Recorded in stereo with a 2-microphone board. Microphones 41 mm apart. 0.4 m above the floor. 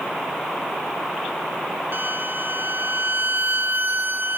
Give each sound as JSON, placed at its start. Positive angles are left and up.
{"t": 1.9, "sound": "a violin", "side_deg": -55, "distance_m": 0.9}